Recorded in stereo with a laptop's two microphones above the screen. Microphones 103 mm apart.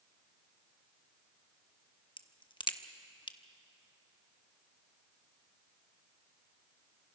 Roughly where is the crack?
Left.